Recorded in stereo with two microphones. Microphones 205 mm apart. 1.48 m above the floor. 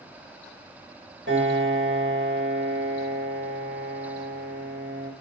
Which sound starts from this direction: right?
A piano, at 1.3 s.